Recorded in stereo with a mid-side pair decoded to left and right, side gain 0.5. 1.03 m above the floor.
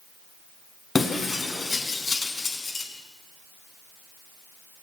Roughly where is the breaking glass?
Ahead left.